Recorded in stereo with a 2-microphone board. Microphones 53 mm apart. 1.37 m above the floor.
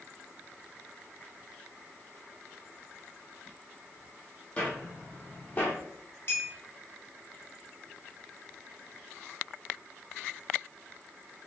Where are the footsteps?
20° left (ahead or behind), 1.7 m; by 5.8 s 30° left (ahead or behind), 1.6 m.